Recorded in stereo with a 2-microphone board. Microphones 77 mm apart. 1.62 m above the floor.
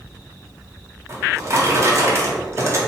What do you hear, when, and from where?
1.1 s a drawer: 35° right (ahead or behind), 0.9 m